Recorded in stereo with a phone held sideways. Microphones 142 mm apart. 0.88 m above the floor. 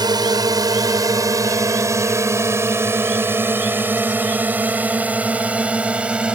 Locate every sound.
0.0 s a drone: 30° right (ahead or behind); by 6.3 s 5° right (ahead or behind)